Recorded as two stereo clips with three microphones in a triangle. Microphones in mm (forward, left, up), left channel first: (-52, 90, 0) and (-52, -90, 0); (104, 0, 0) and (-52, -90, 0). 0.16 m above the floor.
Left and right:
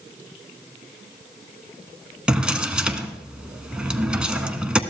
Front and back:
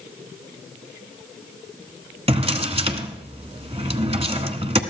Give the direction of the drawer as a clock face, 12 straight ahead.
6 o'clock.